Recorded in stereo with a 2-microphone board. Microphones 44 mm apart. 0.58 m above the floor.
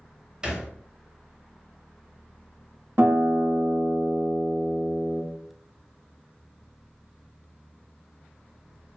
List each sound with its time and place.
0.4 s a thud: 20° right (ahead or behind), 0.9 m
3.0 s a guitar: 70° right (ahead or behind), 1.1 m